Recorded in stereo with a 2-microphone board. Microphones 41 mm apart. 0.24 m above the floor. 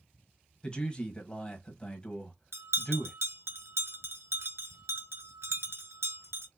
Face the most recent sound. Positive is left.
turn(degrees=-75)  # may be behind; listen again after turning